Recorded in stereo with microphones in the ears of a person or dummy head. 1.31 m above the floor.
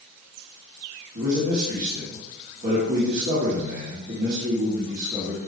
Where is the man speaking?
60° right (ahead or behind), 2.5 m.